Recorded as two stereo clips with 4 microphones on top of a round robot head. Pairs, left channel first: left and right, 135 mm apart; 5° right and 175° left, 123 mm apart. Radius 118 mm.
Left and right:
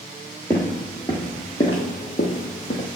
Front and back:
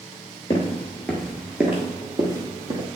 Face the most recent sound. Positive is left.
turn(degrees=130)